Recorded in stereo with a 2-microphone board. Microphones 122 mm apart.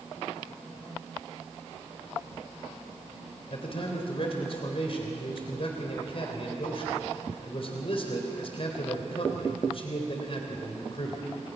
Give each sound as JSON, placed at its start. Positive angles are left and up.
{"t": 3.5, "sound": "a man speaking", "side_deg": 50, "distance_m": 3.0}